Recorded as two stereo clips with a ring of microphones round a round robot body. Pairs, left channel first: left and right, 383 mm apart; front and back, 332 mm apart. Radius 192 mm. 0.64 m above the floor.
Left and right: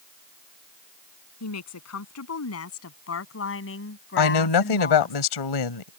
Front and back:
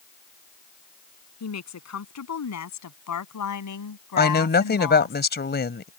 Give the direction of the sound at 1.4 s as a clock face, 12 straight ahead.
11 o'clock.